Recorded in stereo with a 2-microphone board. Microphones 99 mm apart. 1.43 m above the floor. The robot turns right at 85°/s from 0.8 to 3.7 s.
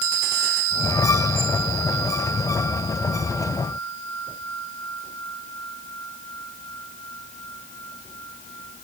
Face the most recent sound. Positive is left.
No sound to turn to.